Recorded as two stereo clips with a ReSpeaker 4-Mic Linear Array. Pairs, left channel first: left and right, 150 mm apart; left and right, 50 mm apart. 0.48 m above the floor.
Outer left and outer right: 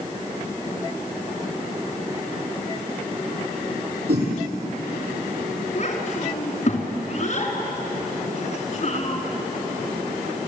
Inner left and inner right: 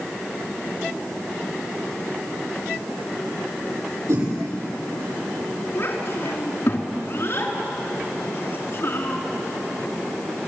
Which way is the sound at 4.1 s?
80° right.